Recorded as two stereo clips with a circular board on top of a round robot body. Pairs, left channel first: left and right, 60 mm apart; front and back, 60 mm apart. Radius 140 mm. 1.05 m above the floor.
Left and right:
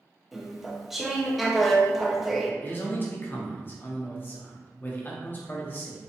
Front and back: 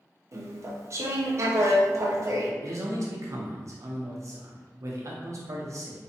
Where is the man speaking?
145° left, 1.1 m.